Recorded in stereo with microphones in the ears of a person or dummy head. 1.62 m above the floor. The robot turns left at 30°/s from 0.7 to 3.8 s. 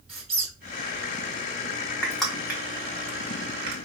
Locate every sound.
0.1 s a squeak: 5° right (ahead or behind), 1.3 m
2.0 s crushing: 5° left (ahead or behind), 0.8 m; by 3.8 s 35° right (ahead or behind), 0.8 m